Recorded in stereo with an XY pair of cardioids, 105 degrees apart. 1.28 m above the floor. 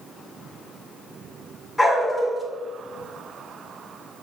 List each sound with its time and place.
1.8 s a dog barking: 15° left, 2.0 m